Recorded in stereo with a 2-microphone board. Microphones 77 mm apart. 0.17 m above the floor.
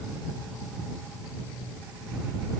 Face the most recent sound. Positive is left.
No sound to turn to.